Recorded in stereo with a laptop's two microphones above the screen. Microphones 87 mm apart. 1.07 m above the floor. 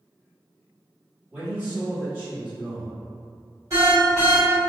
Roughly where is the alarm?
Right.